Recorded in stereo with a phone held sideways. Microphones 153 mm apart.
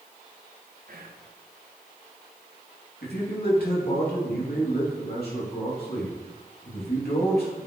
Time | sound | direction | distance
0.9 | whispering | 65° right (ahead or behind) | 1.0 m
3.0 | a man speaking | 75° left (ahead or behind) | 2.5 m